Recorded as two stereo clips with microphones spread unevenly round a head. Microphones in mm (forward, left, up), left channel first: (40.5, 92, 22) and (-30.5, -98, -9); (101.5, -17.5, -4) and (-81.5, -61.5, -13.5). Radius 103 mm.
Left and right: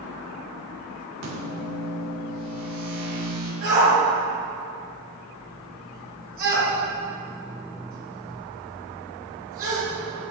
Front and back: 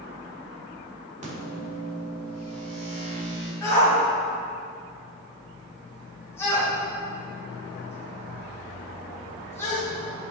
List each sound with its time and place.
1.2 s a microwave: 115° right, 3 m
3.6 s a shout: 65° right, 2.0 m